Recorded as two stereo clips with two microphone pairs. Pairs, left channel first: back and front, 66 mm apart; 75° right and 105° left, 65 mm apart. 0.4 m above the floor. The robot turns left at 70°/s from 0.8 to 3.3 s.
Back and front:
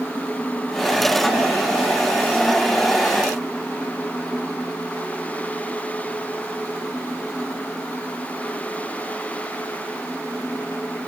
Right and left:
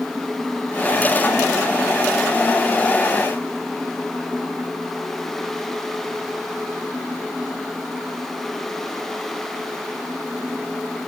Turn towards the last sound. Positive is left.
No sound to turn to.